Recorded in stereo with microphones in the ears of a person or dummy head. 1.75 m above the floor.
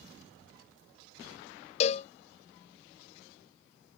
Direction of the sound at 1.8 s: 40° left (ahead or behind).